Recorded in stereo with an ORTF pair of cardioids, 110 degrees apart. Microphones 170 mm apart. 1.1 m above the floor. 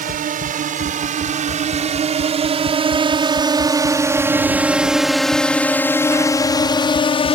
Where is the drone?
55° right; by 7.3 s 40° left.